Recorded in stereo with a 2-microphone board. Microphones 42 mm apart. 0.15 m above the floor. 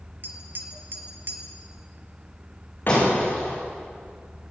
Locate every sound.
0.2 s tapping: 50° right (ahead or behind), 2.5 m
2.9 s breaking glass: 55° left (ahead or behind), 9.5 m